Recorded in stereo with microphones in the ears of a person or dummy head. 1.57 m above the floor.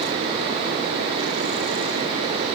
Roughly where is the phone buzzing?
I don't hear a phone buzzing.